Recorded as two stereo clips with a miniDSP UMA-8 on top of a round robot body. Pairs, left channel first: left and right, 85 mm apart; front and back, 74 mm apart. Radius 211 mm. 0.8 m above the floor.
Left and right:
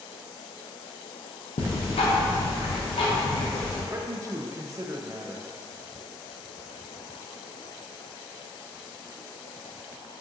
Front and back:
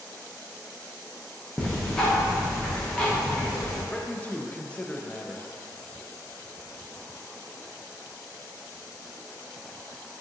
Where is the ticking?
80° left, 0.6 m.